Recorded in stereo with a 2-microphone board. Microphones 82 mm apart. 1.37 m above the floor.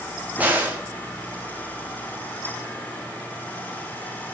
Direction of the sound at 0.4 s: 20° right (ahead or behind).